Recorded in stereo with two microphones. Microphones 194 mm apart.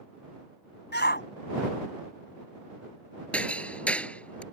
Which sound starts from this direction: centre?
Hammering, at 3.3 s.